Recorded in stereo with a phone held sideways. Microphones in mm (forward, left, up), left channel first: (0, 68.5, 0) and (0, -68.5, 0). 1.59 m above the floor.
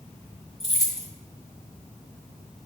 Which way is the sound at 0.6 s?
5° left (ahead or behind).